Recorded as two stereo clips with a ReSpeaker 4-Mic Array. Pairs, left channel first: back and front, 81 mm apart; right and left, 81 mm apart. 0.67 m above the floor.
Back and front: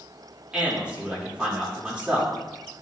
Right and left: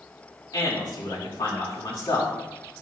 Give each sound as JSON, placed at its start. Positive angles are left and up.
{"t": 0.5, "sound": "a man speaking", "azimuth_deg": -75, "distance_m": 2.5}